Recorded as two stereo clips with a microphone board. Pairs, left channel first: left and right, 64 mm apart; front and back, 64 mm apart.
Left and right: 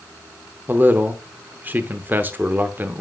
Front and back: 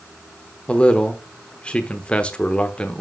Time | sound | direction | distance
0.7 | a man speaking | 60° right | 0.9 m